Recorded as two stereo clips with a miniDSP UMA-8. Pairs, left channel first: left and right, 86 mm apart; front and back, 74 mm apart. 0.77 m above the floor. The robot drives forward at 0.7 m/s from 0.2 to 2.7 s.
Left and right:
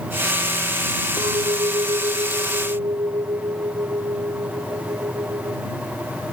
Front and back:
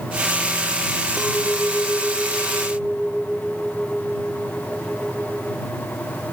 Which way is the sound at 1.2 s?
90° right.